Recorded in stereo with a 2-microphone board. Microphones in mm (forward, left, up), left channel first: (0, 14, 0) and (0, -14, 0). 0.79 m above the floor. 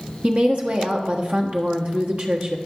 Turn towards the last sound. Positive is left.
turn(degrees=-55)  # may be behind; listen again after turning